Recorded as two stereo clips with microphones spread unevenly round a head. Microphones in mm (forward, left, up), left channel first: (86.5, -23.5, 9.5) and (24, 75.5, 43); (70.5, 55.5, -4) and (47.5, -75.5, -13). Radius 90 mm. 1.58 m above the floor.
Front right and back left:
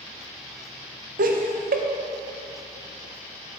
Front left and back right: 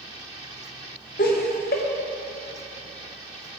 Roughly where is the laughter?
Behind left.